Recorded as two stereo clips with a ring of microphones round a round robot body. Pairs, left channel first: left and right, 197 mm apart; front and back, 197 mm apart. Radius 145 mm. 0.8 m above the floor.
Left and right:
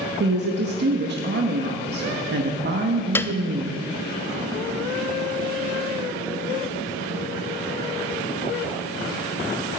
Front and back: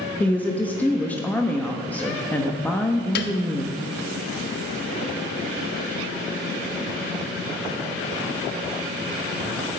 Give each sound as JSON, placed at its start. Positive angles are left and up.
{"t": 0.2, "sound": "a woman speaking", "azimuth_deg": -80, "distance_m": 1.0}
{"t": 3.1, "sound": "a piano", "azimuth_deg": 10, "distance_m": 0.5}